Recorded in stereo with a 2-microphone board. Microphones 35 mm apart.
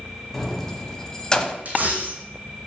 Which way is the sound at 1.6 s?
50° right (ahead or behind).